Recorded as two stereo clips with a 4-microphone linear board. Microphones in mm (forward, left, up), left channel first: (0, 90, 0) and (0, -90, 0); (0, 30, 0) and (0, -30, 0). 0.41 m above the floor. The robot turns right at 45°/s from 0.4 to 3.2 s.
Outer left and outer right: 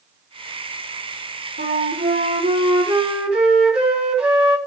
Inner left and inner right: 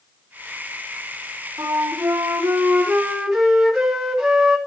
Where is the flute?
80° right, 3 m; by 4.6 s 5° right, 3 m.